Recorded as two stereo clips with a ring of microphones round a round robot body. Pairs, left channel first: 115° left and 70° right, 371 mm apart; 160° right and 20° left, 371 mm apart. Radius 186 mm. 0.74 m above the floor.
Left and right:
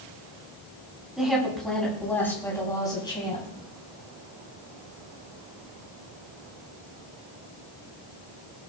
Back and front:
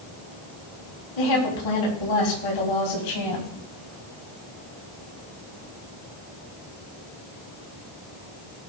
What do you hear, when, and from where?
1.2 s a woman speaking: 155° right, 6 m; by 3.5 s 170° right, 5 m